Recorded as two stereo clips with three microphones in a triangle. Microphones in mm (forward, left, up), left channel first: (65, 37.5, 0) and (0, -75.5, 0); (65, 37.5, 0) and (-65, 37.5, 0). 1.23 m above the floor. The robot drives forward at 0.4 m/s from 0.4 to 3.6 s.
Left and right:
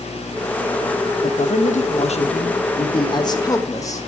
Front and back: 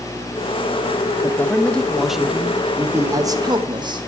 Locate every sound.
1.2 s a man speaking: 70° left, 1.0 m; by 4.1 s 125° left, 1.1 m